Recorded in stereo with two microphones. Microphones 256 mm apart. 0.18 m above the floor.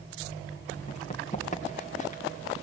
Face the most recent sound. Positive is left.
turn(degrees=30)  # may be behind; listen again after turning